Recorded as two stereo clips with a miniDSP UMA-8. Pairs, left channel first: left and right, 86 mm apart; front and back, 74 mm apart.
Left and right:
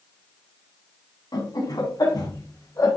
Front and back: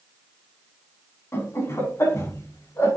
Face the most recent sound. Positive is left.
turn(degrees=45)